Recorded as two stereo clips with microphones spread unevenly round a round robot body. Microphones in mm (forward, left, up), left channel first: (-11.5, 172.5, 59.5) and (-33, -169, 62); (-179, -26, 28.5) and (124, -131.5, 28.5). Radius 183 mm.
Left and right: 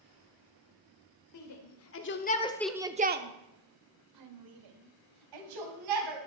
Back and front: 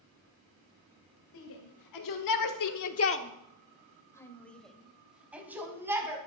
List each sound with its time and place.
1.3 s a shout: 120° left, 2.0 m; by 6.2 s 100° right, 4 m